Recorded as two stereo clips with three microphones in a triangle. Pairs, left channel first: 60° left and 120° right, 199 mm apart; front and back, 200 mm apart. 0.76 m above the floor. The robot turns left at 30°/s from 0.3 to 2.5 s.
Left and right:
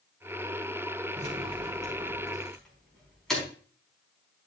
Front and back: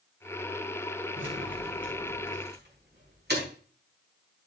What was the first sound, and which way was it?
Keys jangling, 170° right.